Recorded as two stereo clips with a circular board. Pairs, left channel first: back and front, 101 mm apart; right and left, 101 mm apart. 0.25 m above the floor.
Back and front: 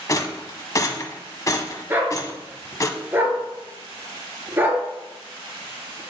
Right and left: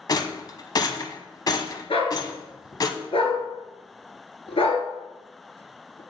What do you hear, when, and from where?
0.1 s a rattle: 130° right, 0.7 m
1.9 s a dog barking: 70° right, 1.5 m